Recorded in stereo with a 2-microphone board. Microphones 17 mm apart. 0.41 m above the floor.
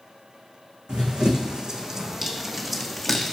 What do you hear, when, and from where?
0.9 s running footsteps: 55° right (ahead or behind), 1.5 m; by 3.3 s 20° left (ahead or behind), 1.3 m